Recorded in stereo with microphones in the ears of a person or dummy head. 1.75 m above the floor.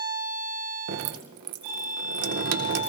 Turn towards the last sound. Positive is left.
turn(degrees=-80)